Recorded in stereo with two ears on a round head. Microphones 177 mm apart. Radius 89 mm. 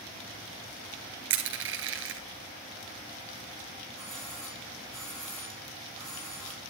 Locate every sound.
1.3 s crushing: 70° right (ahead or behind), 2.5 m
4.0 s a doorbell: centre (ahead or behind), 7.5 m